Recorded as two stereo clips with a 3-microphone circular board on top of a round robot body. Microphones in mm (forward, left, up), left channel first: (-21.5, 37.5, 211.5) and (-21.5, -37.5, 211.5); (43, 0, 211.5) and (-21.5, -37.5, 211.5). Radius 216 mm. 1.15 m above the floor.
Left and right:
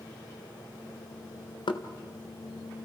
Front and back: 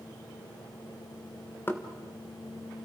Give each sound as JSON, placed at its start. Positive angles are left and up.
{"t": 1.7, "sound": "knocking", "azimuth_deg": 95, "distance_m": 1.4}